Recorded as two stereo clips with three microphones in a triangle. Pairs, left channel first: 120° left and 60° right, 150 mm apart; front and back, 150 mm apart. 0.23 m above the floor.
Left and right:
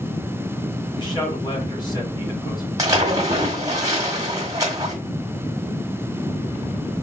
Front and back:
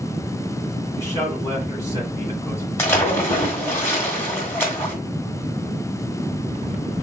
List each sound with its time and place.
1.0 s a man speaking: 70° left, 2.0 m
2.8 s a splash: 45° right, 1.5 m